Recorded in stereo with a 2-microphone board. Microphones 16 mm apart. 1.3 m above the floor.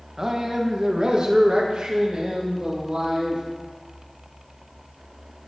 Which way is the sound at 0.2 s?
35° right (ahead or behind).